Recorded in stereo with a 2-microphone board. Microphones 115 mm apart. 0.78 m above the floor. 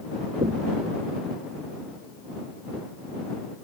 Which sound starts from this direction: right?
Knocking, at 0.4 s.